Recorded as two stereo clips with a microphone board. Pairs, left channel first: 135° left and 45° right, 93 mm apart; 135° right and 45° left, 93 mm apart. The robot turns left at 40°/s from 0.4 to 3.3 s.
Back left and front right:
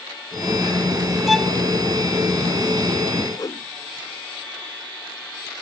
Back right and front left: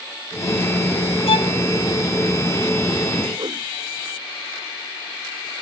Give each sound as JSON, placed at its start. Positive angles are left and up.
{"t": 1.3, "sound": "a violin", "azimuth_deg": -135}
{"t": 3.4, "sound": "a whoosh", "azimuth_deg": 85}